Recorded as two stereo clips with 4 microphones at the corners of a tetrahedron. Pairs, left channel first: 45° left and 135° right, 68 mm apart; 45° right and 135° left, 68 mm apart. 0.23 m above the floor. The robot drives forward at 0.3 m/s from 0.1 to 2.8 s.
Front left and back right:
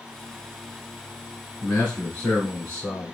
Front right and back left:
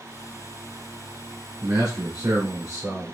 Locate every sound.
1.6 s a man speaking: 110° left, 2 m; by 3.1 s 115° left, 2 m